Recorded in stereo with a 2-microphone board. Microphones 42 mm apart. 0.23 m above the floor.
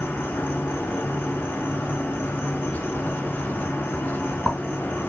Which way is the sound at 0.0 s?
65° left (ahead or behind).